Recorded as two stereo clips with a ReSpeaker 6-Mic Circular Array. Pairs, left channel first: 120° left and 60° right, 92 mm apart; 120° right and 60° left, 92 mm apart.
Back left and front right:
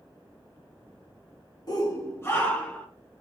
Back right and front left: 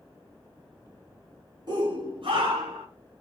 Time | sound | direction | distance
1.7 | a shout | 90° left | 1.6 m